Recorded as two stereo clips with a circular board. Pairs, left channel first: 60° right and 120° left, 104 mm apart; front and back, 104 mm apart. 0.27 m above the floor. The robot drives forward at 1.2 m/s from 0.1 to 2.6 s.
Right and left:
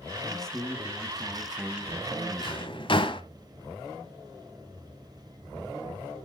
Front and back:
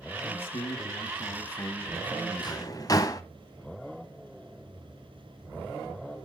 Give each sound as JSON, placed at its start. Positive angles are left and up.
{"t": 0.2, "sound": "a man speaking", "azimuth_deg": 20, "distance_m": 3.0}
{"t": 2.4, "sound": "a drawer", "azimuth_deg": -35, "distance_m": 1.2}